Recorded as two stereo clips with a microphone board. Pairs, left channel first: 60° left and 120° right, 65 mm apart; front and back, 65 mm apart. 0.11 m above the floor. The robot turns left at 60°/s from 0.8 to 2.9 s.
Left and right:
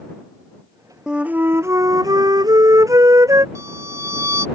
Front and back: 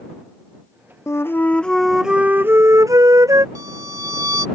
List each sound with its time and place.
1.1 s a flute: 40° right; by 3.5 s 150° right
3.5 s a violin: 155° right